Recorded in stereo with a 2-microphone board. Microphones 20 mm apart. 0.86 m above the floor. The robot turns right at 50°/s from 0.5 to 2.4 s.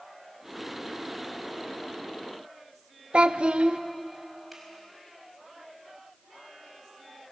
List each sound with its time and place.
3.1 s a child speaking: 70° right (ahead or behind), 0.9 m
4.5 s a finger snap: 5° right (ahead or behind), 5 m